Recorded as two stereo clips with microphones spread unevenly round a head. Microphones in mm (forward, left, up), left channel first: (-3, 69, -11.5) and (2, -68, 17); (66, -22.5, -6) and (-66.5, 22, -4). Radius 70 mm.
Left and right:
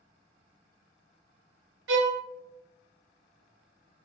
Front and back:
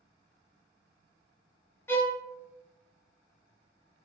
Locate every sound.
1.9 s a violin: 95° right, 0.6 m